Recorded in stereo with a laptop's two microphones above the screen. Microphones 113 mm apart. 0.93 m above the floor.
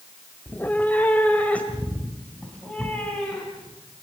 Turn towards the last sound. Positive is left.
turn(degrees=10)  # may be behind; listen again after turning